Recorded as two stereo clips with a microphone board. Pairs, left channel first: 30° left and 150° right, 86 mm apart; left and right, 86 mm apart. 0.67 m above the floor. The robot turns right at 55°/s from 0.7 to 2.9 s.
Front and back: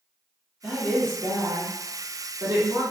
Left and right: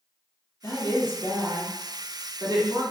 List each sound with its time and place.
0.6 s a woman speaking: 130° left, 1.4 m; by 2.8 s 115° right, 1.4 m